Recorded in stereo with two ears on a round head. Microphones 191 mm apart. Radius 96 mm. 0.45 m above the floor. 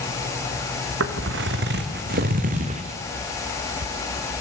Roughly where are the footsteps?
Right.